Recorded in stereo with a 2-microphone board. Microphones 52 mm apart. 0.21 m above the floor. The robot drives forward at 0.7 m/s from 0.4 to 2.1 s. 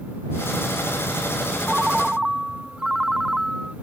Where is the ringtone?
10° right (ahead or behind).